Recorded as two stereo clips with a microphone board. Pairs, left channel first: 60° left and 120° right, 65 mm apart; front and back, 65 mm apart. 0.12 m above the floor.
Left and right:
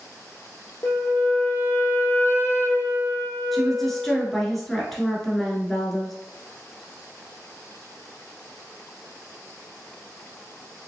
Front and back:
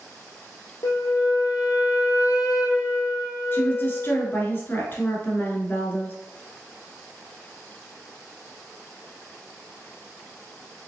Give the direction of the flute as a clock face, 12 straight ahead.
12 o'clock.